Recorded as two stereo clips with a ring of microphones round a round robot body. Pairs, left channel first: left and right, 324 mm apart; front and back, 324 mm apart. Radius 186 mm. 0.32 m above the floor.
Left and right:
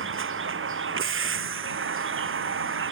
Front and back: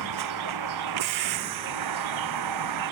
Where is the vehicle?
140° right.